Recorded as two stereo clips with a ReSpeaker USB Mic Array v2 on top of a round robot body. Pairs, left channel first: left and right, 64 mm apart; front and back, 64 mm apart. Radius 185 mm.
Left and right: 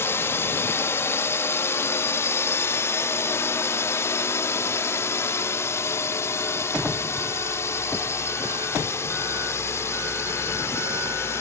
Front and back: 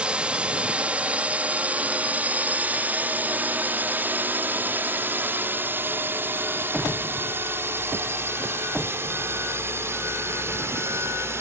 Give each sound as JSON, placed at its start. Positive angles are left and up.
{"t": 0.0, "sound": "a drone", "azimuth_deg": 115}